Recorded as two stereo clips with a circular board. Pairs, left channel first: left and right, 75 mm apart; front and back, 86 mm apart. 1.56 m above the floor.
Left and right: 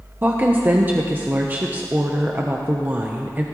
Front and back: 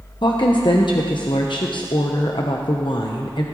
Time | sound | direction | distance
0.2 | a woman speaking | 25° right | 0.9 m